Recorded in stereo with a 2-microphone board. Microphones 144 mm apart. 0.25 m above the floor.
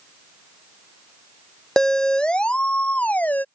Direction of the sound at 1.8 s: 5° left (ahead or behind).